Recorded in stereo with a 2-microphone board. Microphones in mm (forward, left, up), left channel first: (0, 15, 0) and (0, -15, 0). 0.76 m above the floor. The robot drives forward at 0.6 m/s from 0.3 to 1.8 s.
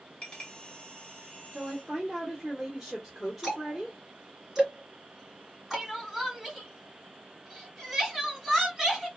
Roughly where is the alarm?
I don't hear an alarm.